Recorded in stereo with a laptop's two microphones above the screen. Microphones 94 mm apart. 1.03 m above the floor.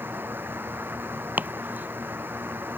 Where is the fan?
25° right (ahead or behind).